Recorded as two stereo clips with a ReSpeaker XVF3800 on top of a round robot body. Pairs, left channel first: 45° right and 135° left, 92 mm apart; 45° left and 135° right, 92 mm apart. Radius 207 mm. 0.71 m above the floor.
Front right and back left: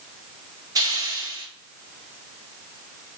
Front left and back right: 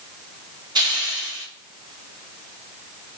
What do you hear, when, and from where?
0.8 s a hiss: 175° right, 1.4 m